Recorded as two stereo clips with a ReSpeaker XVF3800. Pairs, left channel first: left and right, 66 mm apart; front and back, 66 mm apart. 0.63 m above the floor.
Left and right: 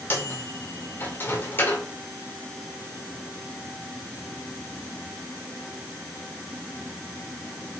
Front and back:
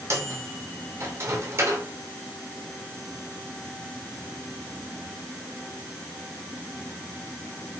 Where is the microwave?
145° left, 2 m.